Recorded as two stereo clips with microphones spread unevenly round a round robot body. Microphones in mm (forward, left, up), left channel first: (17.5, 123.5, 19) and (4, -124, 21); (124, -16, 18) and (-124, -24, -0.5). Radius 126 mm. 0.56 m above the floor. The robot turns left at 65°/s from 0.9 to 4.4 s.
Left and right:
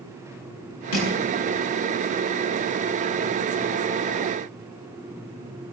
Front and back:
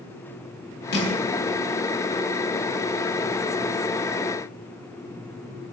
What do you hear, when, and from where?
0.9 s crushing: 55° left, 8 m; by 1.1 s 40° left, 8 m